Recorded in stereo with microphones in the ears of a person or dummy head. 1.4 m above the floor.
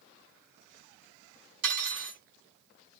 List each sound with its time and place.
1.6 s cutlery clinking: 50° right (ahead or behind), 2.5 m